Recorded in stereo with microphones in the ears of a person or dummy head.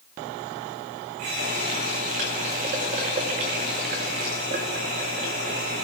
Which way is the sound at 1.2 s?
35° right (ahead or behind).